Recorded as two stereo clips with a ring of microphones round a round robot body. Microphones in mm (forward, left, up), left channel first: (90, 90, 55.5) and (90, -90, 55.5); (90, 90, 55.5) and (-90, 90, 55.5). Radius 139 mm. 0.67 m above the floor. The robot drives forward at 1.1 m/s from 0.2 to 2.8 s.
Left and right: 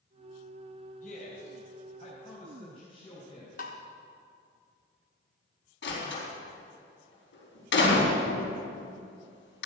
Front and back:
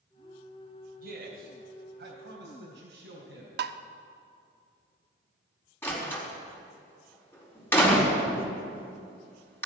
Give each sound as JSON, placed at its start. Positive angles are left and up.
{"t": 1.0, "sound": "a man speaking", "azimuth_deg": 145, "distance_m": 3.0}
{"t": 3.6, "sound": "tapping", "azimuth_deg": 150, "distance_m": 0.6}
{"t": 5.8, "sound": "a door slam", "azimuth_deg": 80, "distance_m": 4.5}